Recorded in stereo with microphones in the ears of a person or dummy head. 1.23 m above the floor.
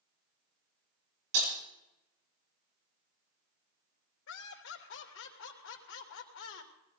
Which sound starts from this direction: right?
Breaking glass, at 1.3 s.